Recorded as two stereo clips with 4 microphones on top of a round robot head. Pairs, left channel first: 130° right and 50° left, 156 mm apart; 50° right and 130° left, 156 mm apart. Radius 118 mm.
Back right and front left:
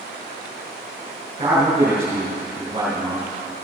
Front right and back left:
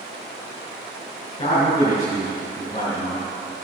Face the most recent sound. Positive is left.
turn(degrees=-5)